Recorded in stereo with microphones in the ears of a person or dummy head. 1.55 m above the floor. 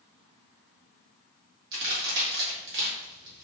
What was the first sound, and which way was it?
A crack, 60° right (ahead or behind).